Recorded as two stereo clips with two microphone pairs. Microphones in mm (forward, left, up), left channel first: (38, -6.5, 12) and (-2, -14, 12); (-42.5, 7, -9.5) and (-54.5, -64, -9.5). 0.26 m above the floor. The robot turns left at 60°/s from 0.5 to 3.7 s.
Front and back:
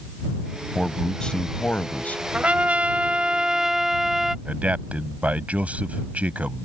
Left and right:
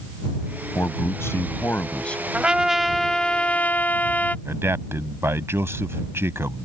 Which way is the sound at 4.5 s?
130° right.